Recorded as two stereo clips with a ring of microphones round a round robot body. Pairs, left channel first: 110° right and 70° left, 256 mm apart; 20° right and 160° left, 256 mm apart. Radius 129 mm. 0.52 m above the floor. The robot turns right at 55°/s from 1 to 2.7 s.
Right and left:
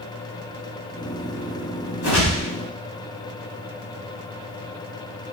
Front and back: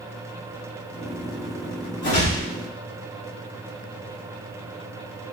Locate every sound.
2.0 s a whoosh: 60° right, 2 m; by 2.5 s 35° right, 2 m